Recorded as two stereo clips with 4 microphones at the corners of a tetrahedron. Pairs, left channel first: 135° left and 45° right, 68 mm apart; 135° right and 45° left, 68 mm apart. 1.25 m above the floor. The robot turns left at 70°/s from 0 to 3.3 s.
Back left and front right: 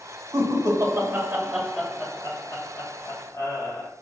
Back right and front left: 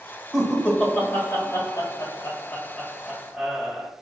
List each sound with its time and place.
0.3 s laughter: 40° right, 1.4 m; by 3.9 s 110° left, 1.4 m